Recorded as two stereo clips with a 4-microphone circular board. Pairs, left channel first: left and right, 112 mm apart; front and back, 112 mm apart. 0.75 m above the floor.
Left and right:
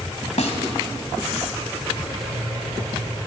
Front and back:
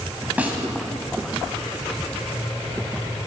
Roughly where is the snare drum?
Left.